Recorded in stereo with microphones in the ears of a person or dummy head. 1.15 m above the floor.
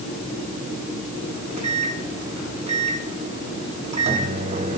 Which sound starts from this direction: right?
A microwave, at 1.3 s.